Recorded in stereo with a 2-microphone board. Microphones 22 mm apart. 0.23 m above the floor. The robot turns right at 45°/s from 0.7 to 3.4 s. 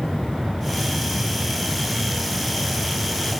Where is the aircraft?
140° right; by 3.4 s 15° right.